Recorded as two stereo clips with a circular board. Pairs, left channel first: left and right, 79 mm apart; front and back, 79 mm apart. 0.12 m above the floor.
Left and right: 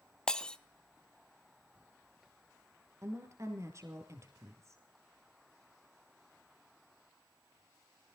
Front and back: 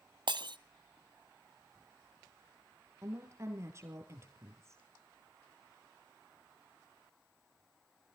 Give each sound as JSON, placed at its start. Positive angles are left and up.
{"t": 0.3, "sound": "breaking glass", "azimuth_deg": 170, "distance_m": 0.7}
{"t": 3.0, "sound": "a woman speaking", "azimuth_deg": -130, "distance_m": 2.5}